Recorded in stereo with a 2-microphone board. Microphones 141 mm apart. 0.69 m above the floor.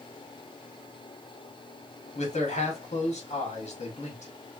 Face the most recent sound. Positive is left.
turn(degrees=55)  # may be behind; listen again after turning